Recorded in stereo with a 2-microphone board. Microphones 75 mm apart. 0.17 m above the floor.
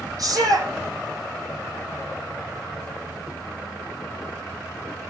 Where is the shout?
50° right (ahead or behind), 8.5 m.